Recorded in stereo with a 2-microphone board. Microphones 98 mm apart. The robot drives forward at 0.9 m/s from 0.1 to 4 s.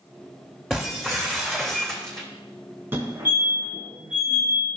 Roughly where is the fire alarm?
Right.